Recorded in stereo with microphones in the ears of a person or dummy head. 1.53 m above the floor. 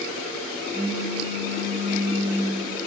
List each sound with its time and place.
0.7 s a pop: 5° right (ahead or behind), 3 m